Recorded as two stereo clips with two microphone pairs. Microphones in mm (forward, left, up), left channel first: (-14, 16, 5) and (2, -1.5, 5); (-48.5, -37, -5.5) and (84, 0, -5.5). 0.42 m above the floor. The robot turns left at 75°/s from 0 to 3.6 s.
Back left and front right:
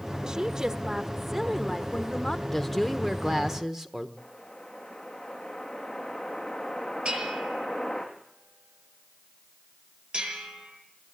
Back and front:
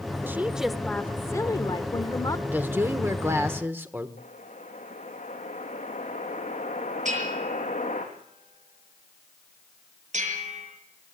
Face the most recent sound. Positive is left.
turn(degrees=-10)